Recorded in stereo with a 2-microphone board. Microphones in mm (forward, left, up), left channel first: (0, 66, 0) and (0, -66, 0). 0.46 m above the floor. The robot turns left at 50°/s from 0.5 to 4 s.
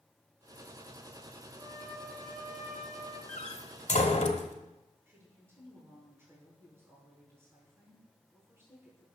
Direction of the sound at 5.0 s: 15° right (ahead or behind).